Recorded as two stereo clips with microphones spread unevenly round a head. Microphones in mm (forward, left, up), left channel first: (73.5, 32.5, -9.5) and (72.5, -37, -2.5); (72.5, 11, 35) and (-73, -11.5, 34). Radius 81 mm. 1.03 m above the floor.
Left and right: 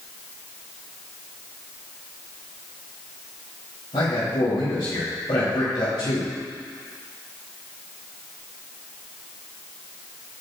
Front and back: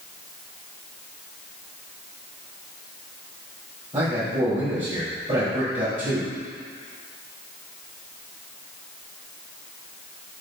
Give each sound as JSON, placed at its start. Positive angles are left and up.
{"t": 3.9, "sound": "a man speaking", "azimuth_deg": 130, "distance_m": 4.0}